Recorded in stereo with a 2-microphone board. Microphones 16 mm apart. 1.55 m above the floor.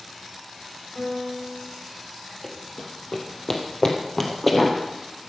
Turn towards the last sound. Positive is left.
turn(degrees=15)  # may be behind; listen again after turning